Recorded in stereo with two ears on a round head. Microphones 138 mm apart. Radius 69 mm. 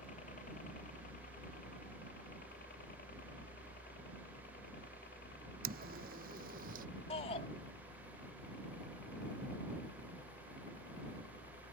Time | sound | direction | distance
0.0 | a helicopter | 50° left (ahead or behind) | ?
5.6 | footsteps | 65° right (ahead or behind) | ?
7.1 | a shout | 40° left (ahead or behind) | ?